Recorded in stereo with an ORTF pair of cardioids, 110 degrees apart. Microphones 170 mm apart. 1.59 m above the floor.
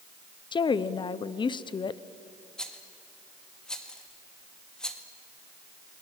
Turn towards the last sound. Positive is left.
turn(degrees=5)